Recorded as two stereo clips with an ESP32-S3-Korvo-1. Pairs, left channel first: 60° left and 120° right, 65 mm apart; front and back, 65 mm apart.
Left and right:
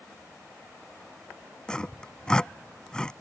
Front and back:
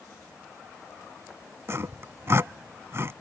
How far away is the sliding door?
No sliding door in this recording.